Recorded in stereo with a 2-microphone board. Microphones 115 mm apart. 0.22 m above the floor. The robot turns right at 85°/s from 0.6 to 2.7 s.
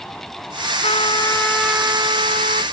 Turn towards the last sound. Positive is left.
turn(degrees=-85)